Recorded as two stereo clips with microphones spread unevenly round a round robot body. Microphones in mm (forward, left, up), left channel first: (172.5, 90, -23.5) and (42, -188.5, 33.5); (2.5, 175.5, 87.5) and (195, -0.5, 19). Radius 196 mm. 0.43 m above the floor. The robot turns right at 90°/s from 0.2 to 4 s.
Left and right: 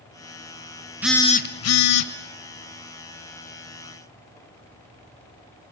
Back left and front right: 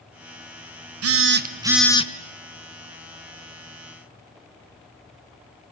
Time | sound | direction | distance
1.0 | a phone buzzing | 25° right | 1.1 m